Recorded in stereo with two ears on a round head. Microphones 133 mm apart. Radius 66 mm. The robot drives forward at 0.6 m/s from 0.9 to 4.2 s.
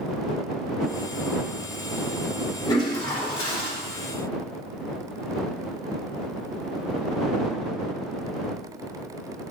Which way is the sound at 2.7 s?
30° left (ahead or behind).